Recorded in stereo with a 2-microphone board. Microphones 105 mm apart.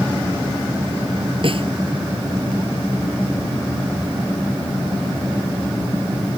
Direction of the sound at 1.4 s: 55° right (ahead or behind).